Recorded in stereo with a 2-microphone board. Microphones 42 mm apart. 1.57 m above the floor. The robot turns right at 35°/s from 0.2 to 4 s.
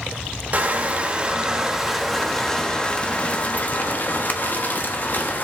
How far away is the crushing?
About 1.3 m.